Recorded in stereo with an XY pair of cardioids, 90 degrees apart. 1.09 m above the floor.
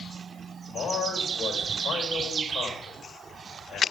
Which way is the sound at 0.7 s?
60° left.